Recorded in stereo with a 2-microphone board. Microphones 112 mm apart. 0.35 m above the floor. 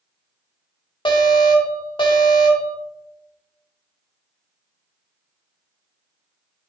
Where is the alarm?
50° left (ahead or behind), 2 m.